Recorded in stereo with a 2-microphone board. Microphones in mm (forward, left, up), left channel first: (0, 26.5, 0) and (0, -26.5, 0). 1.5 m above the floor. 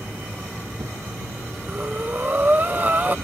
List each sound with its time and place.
0.0 s an insect: 70° right (ahead or behind)
1.7 s breathing: 30° right (ahead or behind)